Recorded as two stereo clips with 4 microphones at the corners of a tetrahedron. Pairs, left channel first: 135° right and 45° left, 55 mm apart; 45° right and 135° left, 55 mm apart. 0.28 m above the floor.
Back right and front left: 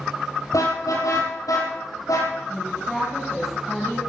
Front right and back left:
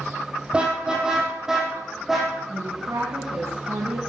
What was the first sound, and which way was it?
A car horn, 155° right.